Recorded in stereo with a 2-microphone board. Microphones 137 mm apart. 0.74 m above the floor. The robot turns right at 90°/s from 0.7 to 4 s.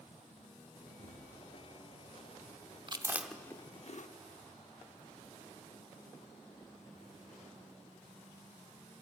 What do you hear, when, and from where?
1.0 s a thud: 70° right (ahead or behind), 6 m; by 1.3 s 80° right, 6 m
2.9 s chewing: 35° right (ahead or behind), 0.8 m; by 4.1 s 65° left (ahead or behind), 0.8 m